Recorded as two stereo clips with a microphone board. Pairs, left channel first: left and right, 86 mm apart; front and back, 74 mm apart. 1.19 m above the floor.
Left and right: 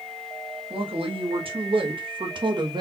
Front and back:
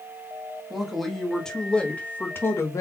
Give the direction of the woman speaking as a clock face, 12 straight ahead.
3 o'clock.